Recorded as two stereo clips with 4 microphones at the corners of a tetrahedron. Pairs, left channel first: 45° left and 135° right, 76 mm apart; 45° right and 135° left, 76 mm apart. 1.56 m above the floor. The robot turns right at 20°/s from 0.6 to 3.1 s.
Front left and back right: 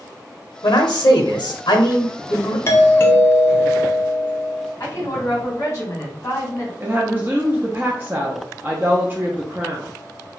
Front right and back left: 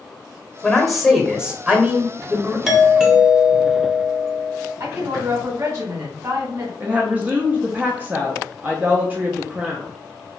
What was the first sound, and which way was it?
A man speaking, 40° left.